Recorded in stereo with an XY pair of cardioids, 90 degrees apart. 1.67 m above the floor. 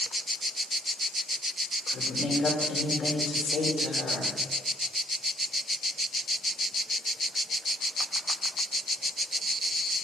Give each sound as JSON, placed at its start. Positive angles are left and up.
{"t": 1.9, "sound": "a woman speaking", "azimuth_deg": 65, "distance_m": 4.5}